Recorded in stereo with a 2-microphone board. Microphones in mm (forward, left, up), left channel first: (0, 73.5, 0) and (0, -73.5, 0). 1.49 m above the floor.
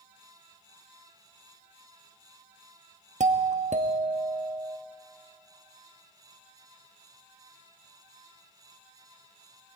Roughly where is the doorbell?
Right.